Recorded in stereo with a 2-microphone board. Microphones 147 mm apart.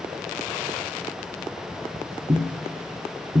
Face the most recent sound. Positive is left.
turn(degrees=-45)  # may be behind; listen again after turning